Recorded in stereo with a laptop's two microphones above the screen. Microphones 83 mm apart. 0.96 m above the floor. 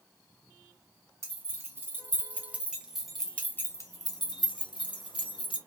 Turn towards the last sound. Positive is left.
turn(degrees=80)